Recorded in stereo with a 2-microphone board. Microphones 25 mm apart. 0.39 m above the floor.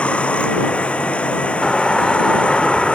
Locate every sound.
0.0 s running water: 55° left (ahead or behind)
1.6 s a doorbell: 20° left (ahead or behind)